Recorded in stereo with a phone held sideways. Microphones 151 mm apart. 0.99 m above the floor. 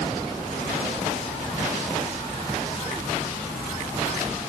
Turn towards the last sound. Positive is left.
No sound to turn to.